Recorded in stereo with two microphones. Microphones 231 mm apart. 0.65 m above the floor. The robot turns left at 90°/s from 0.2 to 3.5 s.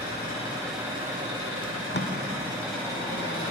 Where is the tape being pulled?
20° left (ahead or behind), 1.1 m; by 2.1 s 60° left (ahead or behind), 1.1 m.